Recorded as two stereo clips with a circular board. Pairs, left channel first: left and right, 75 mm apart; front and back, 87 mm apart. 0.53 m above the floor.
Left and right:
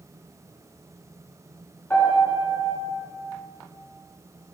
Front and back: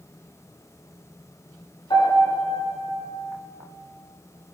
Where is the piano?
25° left, 5.5 m.